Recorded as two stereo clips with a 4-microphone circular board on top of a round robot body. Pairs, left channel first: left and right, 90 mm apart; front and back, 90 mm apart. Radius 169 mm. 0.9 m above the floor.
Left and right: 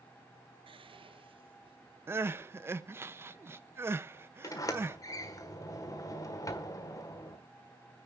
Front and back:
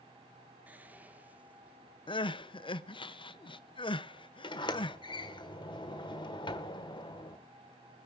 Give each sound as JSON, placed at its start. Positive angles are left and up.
{"t": 0.7, "sound": "whispering", "azimuth_deg": -110, "distance_m": 1.1}
{"t": 2.1, "sound": "crying", "azimuth_deg": -25, "distance_m": 0.7}
{"t": 4.4, "sound": "a sliding door", "azimuth_deg": 35, "distance_m": 1.5}